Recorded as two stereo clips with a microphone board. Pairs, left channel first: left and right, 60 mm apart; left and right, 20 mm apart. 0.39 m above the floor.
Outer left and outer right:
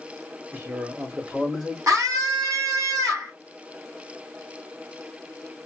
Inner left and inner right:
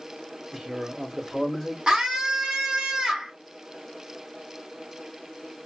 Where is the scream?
60° right (ahead or behind), 2 m.